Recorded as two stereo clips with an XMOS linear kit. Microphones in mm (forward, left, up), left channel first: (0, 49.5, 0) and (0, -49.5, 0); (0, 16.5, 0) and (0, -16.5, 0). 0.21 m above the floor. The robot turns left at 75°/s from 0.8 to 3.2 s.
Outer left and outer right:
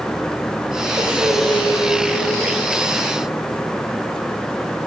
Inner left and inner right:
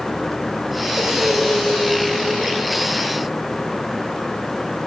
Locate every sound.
1.0 s breathing: 150° right, 3.5 m; by 2.6 s 85° left, 3.5 m